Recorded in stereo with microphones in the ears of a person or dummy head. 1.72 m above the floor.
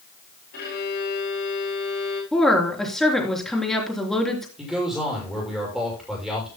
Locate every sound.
0.5 s a violin: 60° left (ahead or behind), 5.5 m
2.3 s a woman speaking: centre (ahead or behind), 3.5 m
4.6 s a man speaking: centre (ahead or behind), 7 m